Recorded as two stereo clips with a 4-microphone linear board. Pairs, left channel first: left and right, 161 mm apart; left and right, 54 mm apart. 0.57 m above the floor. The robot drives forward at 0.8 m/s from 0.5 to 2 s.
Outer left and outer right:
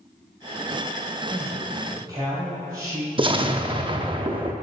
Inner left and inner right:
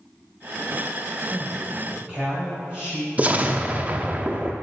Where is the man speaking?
25° right (ahead or behind), 3 m; by 3.1 s 30° right (ahead or behind), 2.5 m.